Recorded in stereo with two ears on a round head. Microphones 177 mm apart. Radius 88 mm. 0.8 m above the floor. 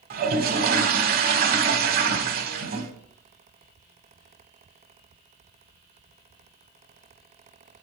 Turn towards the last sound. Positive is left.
turn(degrees=-50)  # may be behind; listen again after turning